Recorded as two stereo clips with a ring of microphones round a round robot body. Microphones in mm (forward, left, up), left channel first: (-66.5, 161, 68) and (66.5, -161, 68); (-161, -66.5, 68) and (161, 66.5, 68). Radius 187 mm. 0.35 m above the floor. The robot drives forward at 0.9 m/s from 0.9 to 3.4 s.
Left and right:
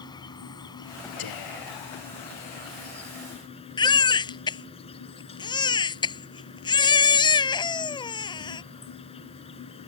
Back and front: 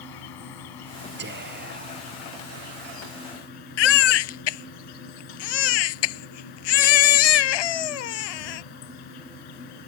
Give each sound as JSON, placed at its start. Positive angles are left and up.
{"t": 0.0, "sound": "an insect", "azimuth_deg": -170}
{"t": 1.2, "sound": "whispering", "azimuth_deg": 85}
{"t": 3.8, "sound": "a baby crying", "azimuth_deg": -170}